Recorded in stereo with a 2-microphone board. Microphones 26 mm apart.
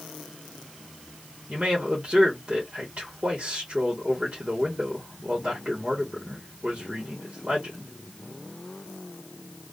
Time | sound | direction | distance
1.5 | a man speaking | 40° right (ahead or behind) | 1.2 m